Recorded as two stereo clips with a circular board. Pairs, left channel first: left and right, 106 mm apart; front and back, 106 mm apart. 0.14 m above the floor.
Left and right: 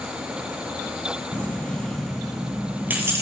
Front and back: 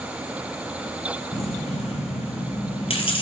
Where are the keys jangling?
15° left, 2.5 m; by 3.2 s 30° right, 1.9 m.